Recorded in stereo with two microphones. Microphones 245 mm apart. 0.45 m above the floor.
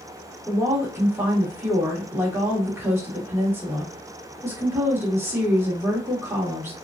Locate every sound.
0.5 s a woman speaking: 10° right (ahead or behind), 1.1 m